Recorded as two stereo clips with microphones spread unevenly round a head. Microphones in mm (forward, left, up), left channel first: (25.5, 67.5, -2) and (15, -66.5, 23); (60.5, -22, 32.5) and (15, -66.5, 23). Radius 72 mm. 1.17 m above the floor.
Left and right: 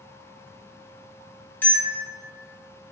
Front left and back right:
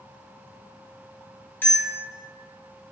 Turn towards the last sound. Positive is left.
turn(degrees=5)